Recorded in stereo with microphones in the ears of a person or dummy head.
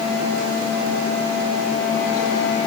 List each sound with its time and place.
Only background noise.